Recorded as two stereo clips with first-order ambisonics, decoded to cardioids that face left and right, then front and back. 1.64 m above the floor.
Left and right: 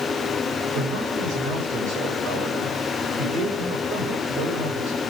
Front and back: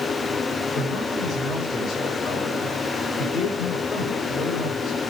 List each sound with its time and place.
0.7 s a man speaking: 55° right, 8.5 m